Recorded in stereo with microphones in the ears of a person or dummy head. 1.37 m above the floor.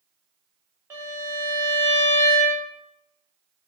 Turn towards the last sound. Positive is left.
turn(degrees=-10)  # may be behind; listen again after turning